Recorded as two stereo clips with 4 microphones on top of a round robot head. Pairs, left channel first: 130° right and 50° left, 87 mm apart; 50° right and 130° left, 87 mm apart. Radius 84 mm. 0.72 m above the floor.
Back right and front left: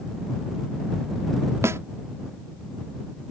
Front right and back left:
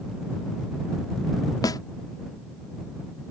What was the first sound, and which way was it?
A snare drum, 10° right.